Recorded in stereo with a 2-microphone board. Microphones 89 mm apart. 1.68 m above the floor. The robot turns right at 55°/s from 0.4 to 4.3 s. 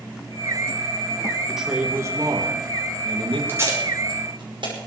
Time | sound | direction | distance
1.5 | a man speaking | straight behind | 3 m
3.5 | tape being pulled | 25° right (ahead or behind) | 5.5 m